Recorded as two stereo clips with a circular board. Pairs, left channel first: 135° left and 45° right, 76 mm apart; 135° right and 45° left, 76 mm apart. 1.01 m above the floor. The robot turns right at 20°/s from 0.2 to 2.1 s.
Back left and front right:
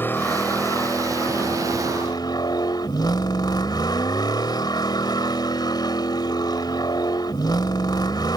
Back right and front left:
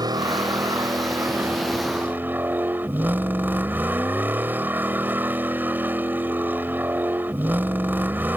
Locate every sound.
0.0 s a vehicle: 75° left; by 8.4 s 110° left